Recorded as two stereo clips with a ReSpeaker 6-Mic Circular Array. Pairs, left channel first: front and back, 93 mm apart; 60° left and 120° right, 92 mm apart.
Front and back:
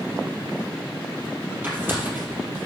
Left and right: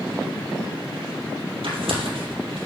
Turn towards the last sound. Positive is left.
turn(degrees=-110)